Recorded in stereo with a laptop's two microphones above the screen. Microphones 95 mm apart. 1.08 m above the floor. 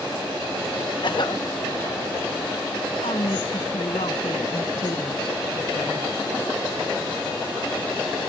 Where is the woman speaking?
80° left.